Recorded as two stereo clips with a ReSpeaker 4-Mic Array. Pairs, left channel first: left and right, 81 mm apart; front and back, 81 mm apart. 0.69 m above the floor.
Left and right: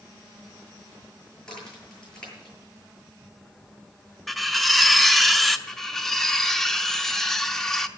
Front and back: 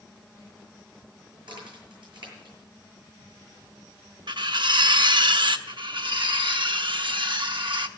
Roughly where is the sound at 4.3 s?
Behind.